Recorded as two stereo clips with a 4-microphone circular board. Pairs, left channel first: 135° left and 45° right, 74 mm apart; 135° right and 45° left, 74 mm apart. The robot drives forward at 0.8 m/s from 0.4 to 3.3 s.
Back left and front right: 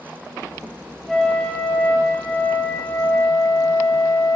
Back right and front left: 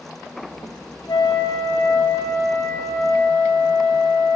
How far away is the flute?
About 0.7 m.